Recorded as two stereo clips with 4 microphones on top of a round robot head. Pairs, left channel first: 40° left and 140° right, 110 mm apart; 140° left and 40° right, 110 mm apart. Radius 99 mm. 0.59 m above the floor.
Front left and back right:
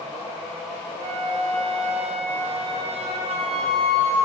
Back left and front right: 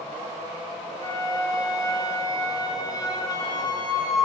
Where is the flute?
165° right, 1.3 m.